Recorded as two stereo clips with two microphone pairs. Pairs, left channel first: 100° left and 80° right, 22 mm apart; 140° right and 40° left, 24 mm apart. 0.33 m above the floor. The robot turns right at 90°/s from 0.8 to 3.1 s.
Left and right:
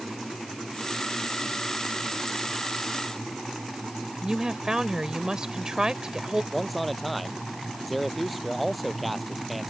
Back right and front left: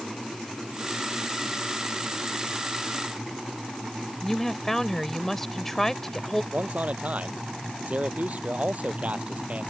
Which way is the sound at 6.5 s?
10° left.